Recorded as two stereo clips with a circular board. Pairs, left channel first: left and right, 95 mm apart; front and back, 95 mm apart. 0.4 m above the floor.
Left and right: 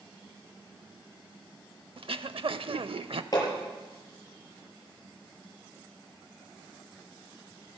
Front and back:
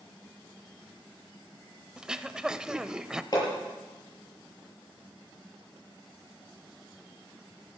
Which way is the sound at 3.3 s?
45° left.